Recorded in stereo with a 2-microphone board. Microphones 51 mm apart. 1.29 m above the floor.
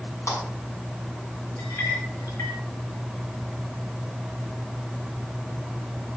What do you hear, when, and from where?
0.3 s a clap: 65° left (ahead or behind), 9.5 m
1.6 s a clink: 70° left (ahead or behind), 4 m